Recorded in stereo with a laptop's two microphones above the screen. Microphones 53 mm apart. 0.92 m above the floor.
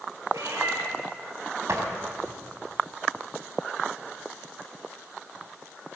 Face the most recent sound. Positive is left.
turn(degrees=-65)  # may be behind; listen again after turning